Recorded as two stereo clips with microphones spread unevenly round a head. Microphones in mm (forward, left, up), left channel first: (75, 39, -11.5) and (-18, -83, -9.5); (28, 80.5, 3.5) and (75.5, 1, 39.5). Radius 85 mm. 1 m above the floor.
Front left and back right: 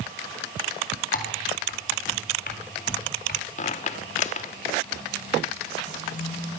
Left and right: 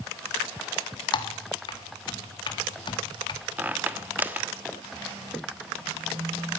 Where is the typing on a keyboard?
95° left, 1.9 m.